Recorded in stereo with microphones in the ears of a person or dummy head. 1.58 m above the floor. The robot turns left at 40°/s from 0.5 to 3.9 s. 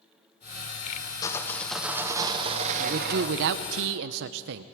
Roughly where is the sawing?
Ahead.